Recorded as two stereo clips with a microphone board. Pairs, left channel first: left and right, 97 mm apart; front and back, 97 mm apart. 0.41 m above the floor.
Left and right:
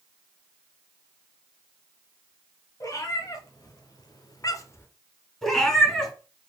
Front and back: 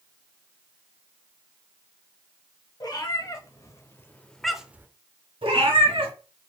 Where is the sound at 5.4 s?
175° left, 1.9 m.